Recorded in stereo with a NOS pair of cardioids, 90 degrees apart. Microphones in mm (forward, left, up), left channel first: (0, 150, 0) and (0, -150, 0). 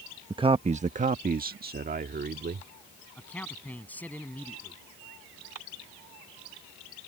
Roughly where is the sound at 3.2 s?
Ahead.